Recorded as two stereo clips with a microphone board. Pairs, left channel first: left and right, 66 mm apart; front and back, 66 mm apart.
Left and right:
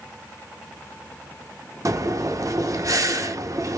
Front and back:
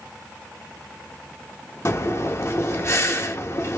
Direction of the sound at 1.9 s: 50° right.